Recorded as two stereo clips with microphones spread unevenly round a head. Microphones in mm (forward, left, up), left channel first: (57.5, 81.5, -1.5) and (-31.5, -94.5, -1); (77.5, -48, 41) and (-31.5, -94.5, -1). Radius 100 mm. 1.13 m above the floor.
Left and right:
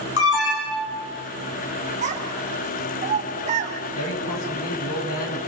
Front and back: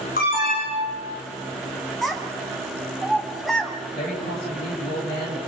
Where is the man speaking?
60° left, 7.5 m.